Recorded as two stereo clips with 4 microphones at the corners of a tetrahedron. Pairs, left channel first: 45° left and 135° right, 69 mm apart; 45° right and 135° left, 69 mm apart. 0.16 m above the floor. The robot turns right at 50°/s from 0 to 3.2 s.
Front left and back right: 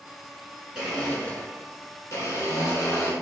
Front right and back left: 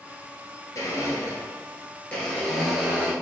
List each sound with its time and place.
0.8 s a blender: 50° right, 1.1 m; by 3.1 s 70° left, 1.1 m